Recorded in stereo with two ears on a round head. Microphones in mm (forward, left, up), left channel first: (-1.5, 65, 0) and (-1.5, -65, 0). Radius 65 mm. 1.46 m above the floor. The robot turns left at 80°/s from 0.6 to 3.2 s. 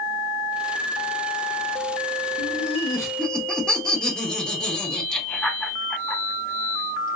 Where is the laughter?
70° left (ahead or behind), 1.0 m; by 7.2 s 5° left (ahead or behind), 1.0 m.